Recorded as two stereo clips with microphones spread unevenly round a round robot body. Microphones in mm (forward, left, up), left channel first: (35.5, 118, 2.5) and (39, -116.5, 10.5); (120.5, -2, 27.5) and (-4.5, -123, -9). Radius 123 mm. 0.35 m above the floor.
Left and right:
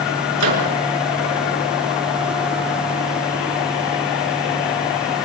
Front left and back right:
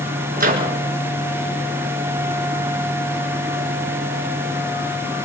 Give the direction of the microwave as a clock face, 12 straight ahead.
4 o'clock.